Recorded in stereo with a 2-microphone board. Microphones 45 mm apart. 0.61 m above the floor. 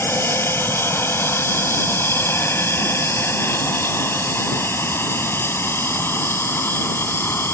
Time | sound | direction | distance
0.0 | an aircraft | 70° left (ahead or behind) | ?